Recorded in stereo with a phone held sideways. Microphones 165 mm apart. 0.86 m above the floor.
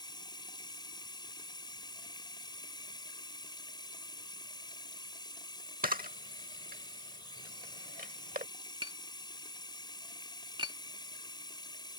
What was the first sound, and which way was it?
Running water, 25° left (ahead or behind).